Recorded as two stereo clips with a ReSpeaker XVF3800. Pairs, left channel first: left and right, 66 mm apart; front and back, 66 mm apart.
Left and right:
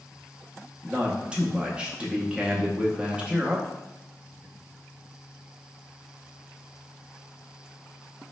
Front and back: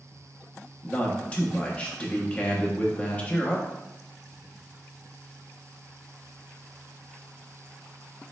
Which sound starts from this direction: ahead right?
A man speaking, at 0.8 s.